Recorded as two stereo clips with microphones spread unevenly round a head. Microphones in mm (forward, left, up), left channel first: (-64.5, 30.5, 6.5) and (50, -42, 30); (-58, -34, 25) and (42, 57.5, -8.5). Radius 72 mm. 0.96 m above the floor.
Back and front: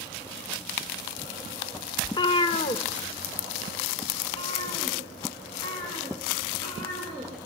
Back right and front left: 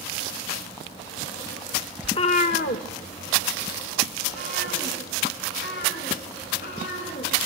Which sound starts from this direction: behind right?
A cat meowing, at 2.0 s.